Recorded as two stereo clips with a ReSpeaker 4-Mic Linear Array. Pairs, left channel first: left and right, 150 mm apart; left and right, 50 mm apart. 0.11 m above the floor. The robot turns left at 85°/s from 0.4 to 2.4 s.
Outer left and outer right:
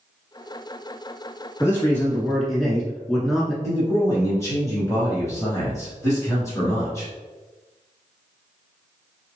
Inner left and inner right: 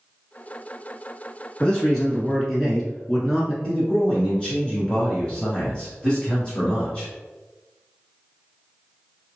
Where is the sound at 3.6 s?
20° left (ahead or behind), 1.7 m.